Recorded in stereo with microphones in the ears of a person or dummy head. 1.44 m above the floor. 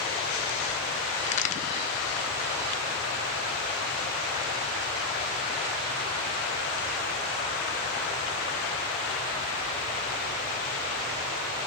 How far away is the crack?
About 0.5 m.